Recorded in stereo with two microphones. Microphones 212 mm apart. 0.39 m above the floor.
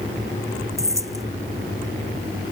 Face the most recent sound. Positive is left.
turn(degrees=-15)  # may be behind; listen again after turning